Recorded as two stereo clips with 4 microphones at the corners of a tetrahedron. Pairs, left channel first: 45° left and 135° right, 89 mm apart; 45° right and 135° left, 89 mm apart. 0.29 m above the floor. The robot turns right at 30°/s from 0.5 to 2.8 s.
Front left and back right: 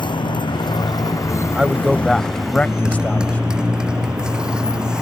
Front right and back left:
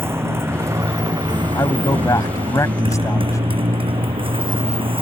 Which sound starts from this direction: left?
A motorcycle, at 0.0 s.